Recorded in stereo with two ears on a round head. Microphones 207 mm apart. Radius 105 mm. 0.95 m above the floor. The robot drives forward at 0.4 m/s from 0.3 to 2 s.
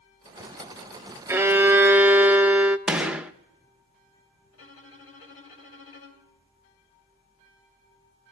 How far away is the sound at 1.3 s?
About 0.5 m.